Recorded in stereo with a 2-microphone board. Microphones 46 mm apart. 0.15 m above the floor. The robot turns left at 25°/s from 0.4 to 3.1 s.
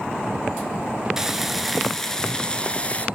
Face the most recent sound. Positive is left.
turn(degrees=145)